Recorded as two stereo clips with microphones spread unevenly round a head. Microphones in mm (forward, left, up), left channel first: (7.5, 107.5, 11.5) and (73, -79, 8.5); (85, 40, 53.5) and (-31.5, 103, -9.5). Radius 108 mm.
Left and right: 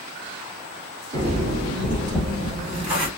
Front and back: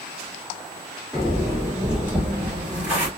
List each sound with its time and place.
1.1 s footsteps: 105° right, 2.5 m; by 3.1 s 140° right, 2.5 m